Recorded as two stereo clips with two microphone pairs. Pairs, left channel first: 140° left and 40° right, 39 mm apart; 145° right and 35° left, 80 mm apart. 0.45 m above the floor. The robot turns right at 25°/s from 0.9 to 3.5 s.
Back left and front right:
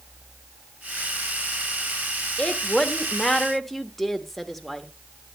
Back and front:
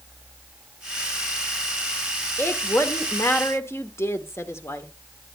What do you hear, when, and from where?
2.4 s a woman speaking: 170° right, 1.0 m; by 4.9 s 140° right, 1.0 m